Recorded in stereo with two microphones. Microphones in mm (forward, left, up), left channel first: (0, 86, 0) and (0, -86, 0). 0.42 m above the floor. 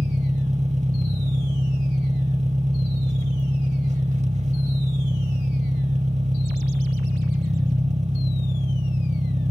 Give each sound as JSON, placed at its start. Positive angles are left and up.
{"t": 0.0, "sound": "an engine running", "side_deg": -40, "distance_m": 0.8}